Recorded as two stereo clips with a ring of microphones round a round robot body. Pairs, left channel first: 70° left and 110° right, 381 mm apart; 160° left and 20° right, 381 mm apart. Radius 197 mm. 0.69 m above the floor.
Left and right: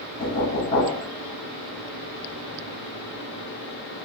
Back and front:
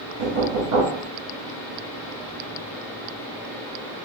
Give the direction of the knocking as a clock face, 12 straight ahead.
12 o'clock.